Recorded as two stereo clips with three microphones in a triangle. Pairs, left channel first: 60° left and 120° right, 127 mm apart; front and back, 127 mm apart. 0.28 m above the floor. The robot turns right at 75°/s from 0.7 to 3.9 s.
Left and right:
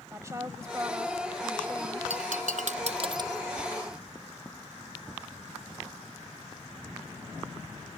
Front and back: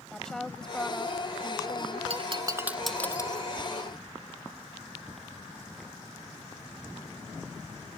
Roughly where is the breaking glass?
Behind right.